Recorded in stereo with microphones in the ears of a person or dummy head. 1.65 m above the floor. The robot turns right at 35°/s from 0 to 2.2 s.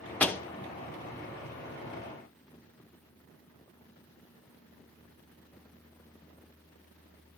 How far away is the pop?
About 1.0 m.